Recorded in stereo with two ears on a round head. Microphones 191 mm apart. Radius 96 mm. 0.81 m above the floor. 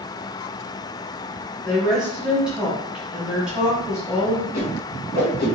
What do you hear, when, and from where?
1.6 s a woman speaking: 5° right (ahead or behind), 1.0 m
4.5 s a whoosh: 50° left (ahead or behind), 1.7 m